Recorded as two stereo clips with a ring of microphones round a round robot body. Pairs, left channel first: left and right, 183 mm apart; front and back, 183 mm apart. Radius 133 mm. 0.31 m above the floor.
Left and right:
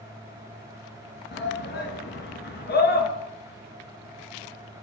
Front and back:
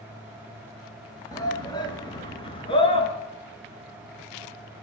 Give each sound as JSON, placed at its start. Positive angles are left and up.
{"t": 1.3, "sound": "a shout", "azimuth_deg": 70, "distance_m": 6.0}